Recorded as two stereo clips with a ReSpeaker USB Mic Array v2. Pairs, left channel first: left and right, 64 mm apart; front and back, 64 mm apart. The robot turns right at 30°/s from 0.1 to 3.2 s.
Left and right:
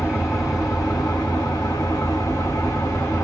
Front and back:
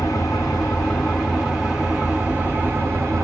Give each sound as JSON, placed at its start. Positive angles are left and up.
{"t": 0.0, "sound": "an engine running", "azimuth_deg": 40, "distance_m": 2.5}